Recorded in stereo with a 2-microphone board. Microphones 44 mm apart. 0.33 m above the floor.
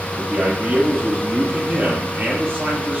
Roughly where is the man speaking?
Right.